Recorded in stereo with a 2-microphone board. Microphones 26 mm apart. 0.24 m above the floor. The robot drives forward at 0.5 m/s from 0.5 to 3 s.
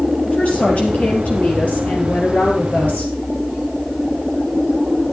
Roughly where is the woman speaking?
Left.